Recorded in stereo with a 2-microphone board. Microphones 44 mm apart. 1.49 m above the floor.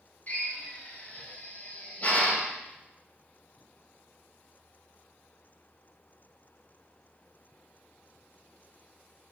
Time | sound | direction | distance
0.3 | a drill | 35° left (ahead or behind) | 2.5 m